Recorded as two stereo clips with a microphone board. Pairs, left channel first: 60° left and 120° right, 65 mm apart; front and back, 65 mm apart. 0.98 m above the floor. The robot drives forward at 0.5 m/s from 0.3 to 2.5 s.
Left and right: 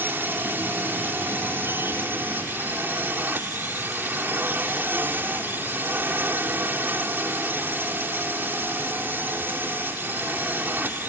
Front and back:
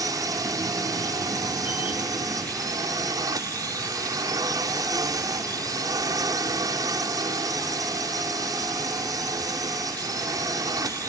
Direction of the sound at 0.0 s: 175° right.